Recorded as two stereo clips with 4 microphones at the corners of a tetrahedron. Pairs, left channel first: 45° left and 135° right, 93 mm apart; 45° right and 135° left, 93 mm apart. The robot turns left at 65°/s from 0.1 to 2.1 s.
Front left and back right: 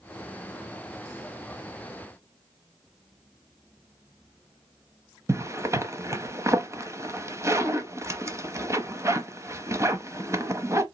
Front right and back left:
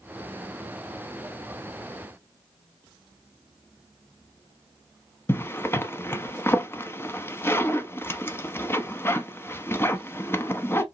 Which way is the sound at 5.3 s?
95° right.